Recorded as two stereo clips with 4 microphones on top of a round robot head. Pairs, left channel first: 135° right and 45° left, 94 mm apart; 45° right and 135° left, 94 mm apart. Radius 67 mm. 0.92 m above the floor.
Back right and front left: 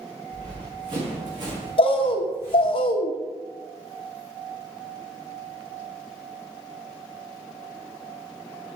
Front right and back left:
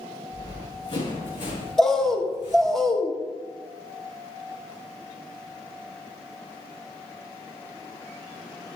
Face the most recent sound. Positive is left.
turn(degrees=-130)